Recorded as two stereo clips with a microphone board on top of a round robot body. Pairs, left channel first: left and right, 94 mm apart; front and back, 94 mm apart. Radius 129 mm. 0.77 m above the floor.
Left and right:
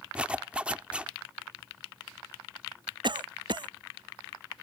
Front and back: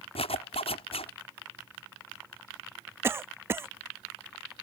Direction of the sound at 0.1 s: 10° right.